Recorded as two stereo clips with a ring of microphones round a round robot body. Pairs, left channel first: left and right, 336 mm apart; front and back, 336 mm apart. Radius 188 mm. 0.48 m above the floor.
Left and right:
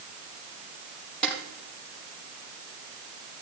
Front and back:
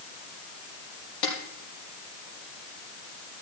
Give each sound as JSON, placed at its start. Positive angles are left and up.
{"t": 1.2, "sound": "a snare drum", "azimuth_deg": 5, "distance_m": 6.5}